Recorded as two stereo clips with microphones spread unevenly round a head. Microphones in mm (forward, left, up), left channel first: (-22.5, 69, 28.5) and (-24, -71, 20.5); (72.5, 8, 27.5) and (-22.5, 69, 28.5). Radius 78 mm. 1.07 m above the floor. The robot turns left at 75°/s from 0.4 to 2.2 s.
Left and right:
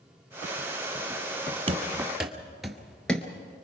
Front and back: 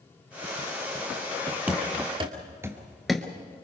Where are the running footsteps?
135° right, 1.7 m; by 3.5 s 20° left, 1.1 m.